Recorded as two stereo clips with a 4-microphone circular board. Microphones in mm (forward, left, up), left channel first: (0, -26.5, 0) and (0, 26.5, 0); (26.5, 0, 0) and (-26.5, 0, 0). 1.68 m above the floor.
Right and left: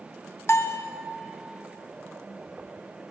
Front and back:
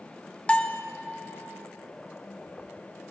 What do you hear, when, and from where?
0.5 s a bell: 65° right, 0.6 m